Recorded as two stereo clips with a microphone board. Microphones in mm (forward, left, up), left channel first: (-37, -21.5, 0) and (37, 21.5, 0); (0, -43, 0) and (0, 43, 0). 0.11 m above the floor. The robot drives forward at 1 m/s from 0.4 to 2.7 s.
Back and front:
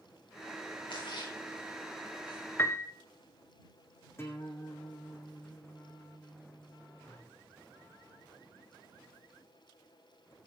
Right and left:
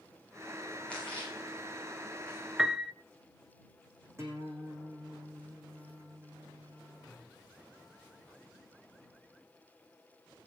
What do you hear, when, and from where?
0.9 s a splash: 165° right, 8 m; by 2.4 s 170° right, 9.5 m
2.6 s a piano: 170° left, 0.8 m
4.2 s a guitar: 150° left, 5 m